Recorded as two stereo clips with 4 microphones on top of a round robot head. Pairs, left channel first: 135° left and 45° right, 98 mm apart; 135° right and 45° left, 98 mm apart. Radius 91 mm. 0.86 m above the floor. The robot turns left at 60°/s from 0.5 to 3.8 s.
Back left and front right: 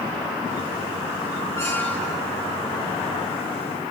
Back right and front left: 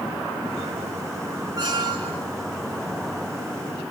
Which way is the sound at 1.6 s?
85° left.